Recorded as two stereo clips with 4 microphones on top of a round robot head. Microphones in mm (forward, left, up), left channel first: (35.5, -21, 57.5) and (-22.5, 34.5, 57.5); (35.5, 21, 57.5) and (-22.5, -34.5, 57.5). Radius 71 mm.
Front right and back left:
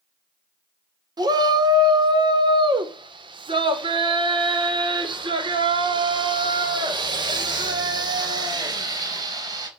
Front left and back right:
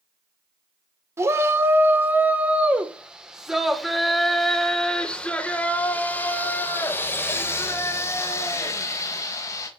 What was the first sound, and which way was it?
A shout, 170° left.